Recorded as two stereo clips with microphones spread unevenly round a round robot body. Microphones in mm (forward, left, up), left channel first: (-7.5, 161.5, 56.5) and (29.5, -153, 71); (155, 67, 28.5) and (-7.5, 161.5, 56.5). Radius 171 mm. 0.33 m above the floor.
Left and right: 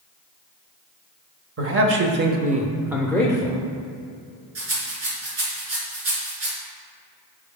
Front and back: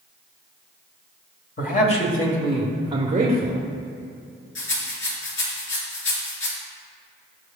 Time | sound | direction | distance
1.6 | a man speaking | 45° right | 1.5 m
4.5 | a rattle | 35° right | 3 m